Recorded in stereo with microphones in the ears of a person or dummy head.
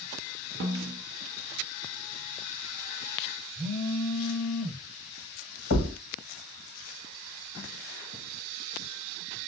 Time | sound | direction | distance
0.6 | a snare drum | 55° right (ahead or behind) | 1.1 m
3.5 | a phone buzzing | 25° left (ahead or behind) | 4 m
5.7 | a thud | 50° left (ahead or behind) | 1.4 m